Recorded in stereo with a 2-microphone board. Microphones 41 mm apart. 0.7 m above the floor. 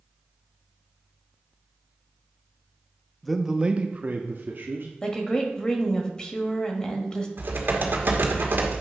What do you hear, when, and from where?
3.2 s a man speaking: 5° left (ahead or behind), 0.5 m; by 4.9 s 60° right (ahead or behind), 1.1 m
5.0 s a woman speaking: 20° left (ahead or behind), 1.2 m
7.4 s typing on a keyboard: 60° right (ahead or behind), 1.3 m